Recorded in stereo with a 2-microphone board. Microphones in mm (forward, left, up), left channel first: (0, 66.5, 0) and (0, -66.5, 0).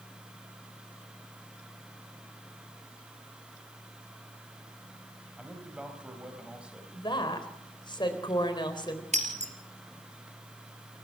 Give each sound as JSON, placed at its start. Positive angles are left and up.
{"t": 5.4, "sound": "a man speaking", "side_deg": -10, "distance_m": 4.0}
{"t": 6.9, "sound": "a woman speaking", "side_deg": 35, "distance_m": 3.5}
{"t": 9.1, "sound": "breaking glass", "side_deg": -60, "distance_m": 3.0}